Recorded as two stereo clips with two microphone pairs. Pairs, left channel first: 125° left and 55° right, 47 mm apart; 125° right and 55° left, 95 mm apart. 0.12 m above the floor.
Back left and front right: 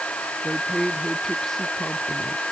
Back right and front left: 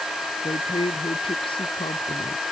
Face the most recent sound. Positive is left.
turn(degrees=-155)